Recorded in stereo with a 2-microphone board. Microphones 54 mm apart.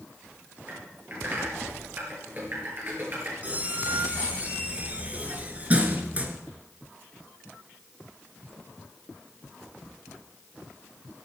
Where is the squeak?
30° right (ahead or behind), 2 m.